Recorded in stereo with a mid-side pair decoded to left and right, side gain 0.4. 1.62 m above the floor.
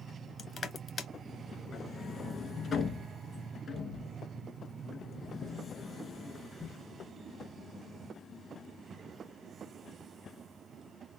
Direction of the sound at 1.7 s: 55° left.